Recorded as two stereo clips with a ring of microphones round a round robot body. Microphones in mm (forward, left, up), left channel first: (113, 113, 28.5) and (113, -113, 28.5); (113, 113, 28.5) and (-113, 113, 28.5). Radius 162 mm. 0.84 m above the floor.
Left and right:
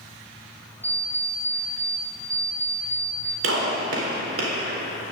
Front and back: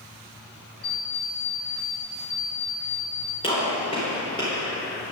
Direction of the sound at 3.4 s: 75° right.